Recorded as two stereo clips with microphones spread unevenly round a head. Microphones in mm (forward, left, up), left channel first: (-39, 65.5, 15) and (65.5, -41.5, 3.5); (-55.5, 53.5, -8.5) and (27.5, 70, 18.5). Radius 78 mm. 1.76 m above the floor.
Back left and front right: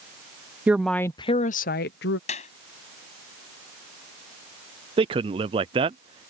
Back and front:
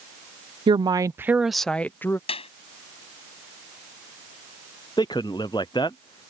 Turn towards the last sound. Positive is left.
turn(degrees=-105)